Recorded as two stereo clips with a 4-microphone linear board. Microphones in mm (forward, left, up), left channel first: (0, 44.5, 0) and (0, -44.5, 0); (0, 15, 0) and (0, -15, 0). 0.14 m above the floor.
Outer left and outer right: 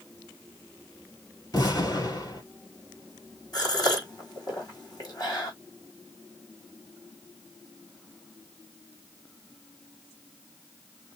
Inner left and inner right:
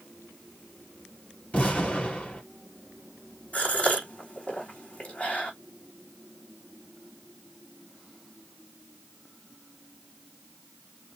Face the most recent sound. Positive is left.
turn(degrees=45)  # may be behind; listen again after turning